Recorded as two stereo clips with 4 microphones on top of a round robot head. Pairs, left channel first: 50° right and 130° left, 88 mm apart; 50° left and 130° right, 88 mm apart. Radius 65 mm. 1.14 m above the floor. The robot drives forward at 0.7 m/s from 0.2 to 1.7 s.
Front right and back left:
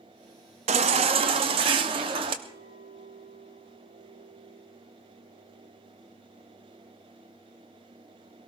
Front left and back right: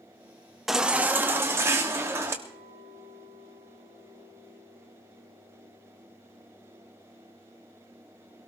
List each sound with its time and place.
0.7 s a baby crying: 140° left, 0.6 m; by 2.3 s 165° left, 1.1 m
2.4 s a clink: 95° left, 8.5 m